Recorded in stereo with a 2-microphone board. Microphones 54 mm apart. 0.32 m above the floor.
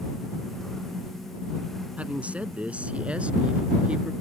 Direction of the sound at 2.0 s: 25° right (ahead or behind).